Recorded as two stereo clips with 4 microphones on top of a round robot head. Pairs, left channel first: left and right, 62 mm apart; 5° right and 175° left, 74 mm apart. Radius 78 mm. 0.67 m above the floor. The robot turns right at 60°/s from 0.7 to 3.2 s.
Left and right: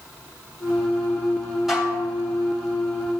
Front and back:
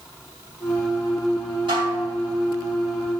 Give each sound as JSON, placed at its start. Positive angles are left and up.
{"t": 1.7, "sound": "dishes clattering", "azimuth_deg": -175, "distance_m": 2.5}